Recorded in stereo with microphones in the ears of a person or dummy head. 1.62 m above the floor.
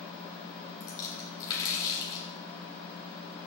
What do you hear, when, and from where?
0.8 s a splash: 25° left (ahead or behind), 3 m